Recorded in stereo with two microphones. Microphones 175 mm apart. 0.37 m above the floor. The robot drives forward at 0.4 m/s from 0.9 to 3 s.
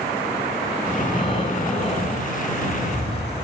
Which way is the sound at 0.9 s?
30° left (ahead or behind).